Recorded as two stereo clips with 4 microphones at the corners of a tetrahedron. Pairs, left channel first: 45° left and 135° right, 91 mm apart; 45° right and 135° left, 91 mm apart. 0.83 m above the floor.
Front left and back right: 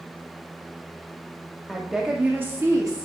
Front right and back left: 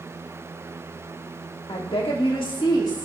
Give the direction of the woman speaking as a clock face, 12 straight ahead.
1 o'clock.